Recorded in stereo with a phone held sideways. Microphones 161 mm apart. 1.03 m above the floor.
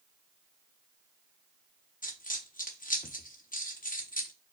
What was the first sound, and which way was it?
A dropped coin, 55° left (ahead or behind).